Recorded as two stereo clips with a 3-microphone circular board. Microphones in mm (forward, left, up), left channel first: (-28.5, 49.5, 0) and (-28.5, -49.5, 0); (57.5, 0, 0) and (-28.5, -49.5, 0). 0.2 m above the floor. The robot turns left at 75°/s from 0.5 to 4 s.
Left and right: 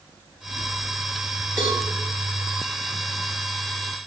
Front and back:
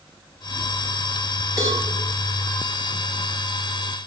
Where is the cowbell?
135° right, 1.0 m; by 1.8 s 155° right, 1.0 m.